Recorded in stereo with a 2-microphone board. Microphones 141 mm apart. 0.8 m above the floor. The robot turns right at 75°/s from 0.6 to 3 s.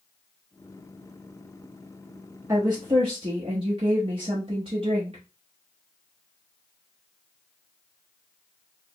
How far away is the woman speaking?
About 1.0 m.